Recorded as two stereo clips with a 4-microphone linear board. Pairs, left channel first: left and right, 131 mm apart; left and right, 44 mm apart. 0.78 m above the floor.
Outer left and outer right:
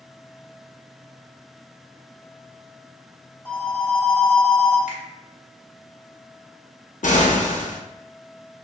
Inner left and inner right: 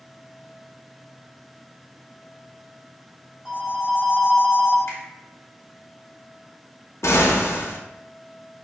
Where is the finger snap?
70° left (ahead or behind), 1.5 m.